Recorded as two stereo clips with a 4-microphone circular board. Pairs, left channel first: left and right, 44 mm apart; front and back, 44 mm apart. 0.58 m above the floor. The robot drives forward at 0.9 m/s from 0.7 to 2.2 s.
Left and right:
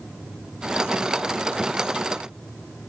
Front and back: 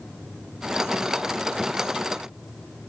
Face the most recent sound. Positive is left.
No sound to turn to.